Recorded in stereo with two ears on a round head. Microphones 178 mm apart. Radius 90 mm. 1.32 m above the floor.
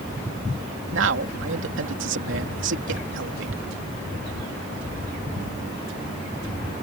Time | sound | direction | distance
0.9 | a man speaking | 70° right (ahead or behind) | ?